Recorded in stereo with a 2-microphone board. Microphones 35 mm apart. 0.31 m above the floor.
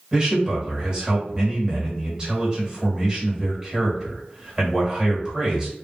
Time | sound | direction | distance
0.1 | a man speaking | 25° right (ahead or behind) | 1.5 m